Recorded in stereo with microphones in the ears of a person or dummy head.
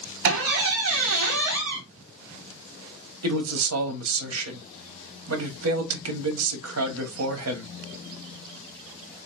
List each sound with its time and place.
0.2 s a squeak: 65° right (ahead or behind), 0.8 m
3.2 s a man speaking: 85° right, 1.0 m